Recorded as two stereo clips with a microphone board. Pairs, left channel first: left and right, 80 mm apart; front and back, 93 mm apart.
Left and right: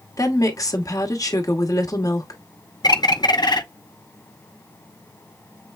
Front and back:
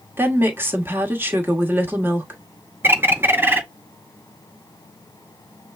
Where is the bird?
115° left, 0.6 m.